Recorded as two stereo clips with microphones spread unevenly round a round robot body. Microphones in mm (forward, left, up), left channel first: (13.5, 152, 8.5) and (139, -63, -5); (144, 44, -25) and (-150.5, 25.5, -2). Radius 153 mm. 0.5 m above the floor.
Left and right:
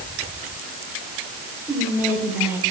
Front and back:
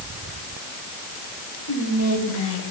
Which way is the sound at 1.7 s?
20° left.